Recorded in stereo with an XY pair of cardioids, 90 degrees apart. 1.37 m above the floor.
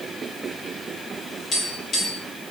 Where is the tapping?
65° left, 1.9 m.